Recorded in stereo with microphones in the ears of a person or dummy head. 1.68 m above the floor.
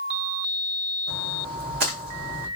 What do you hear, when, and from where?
1.1 s a splash: 50° right (ahead or behind), 1.0 m